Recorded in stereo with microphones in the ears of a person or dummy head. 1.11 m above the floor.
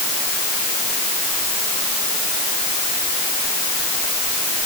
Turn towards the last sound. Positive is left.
No sound to turn to.